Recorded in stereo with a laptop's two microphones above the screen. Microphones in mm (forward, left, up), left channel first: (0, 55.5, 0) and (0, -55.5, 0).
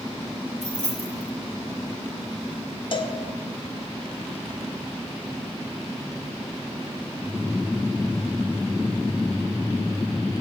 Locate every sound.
0.6 s keys jangling: 80° right, 3 m
2.9 s a cowbell: 50° left (ahead or behind), 0.8 m